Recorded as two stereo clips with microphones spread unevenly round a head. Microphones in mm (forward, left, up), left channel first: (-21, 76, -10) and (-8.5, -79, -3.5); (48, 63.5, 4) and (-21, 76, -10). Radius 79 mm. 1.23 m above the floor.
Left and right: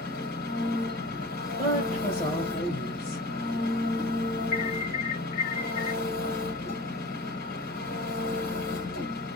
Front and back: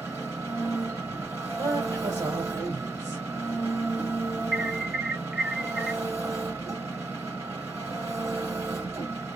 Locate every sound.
0.0 s an engine running: 120° left, 3.5 m
1.6 s a woman speaking: 145° left, 1.8 m
4.5 s an alarm: 105° left, 2.5 m